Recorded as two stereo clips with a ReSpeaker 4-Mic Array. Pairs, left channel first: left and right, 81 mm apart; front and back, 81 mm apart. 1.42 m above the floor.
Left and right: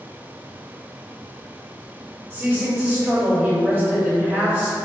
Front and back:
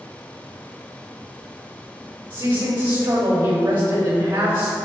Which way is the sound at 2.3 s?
155° right.